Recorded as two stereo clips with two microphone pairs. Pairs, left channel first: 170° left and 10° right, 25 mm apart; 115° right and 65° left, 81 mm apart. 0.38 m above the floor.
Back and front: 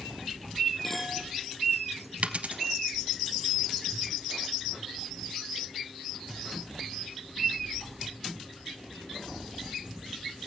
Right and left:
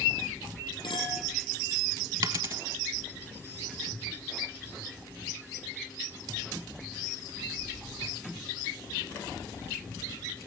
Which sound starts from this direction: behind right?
A clink, at 0.8 s.